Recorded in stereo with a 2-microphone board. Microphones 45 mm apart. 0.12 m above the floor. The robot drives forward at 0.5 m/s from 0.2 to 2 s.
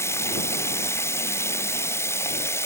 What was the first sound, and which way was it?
Running water, 85° left.